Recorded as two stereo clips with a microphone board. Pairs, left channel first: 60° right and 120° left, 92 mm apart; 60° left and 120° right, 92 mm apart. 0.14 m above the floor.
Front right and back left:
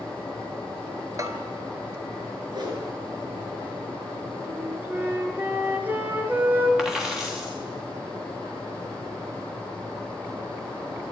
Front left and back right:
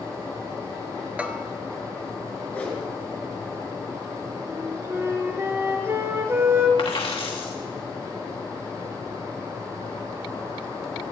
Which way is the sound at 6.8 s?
35° left.